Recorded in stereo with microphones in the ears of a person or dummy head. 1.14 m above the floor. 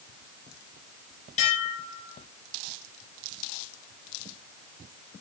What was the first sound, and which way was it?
Dishes clattering, 45° left (ahead or behind).